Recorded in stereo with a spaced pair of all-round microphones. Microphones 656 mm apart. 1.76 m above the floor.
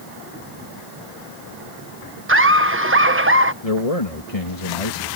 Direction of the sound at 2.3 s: 20° right (ahead or behind).